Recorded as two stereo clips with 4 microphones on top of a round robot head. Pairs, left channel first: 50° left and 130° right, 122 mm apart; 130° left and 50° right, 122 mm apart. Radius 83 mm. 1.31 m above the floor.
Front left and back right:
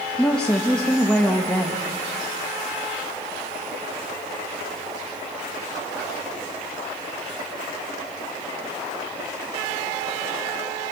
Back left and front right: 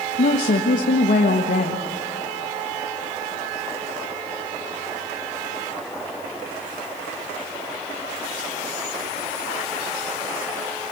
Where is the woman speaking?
135° left, 1.8 m.